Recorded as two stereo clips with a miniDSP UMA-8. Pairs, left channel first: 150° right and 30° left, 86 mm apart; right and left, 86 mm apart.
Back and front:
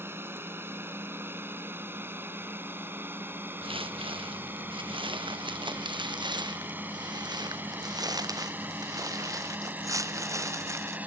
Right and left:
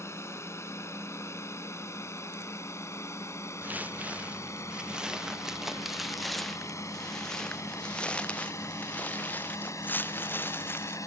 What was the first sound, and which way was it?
A drone, 35° right.